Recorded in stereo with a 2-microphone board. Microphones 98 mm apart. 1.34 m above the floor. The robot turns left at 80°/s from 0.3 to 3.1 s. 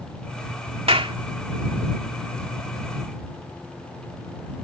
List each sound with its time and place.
0.9 s a clap: 80° right; by 1.1 s 60° right (ahead or behind)